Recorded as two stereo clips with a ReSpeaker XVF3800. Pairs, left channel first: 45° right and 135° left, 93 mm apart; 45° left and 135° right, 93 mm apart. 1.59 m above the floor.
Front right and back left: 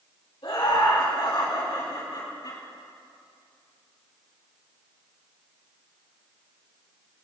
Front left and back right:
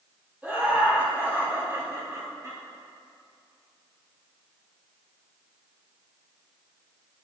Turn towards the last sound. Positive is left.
turn(degrees=-80)